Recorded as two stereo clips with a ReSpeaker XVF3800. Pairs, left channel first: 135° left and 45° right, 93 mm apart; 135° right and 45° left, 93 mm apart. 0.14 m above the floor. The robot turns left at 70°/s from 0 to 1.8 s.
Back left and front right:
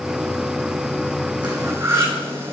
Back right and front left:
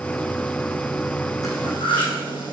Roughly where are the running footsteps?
No running footsteps in this recording.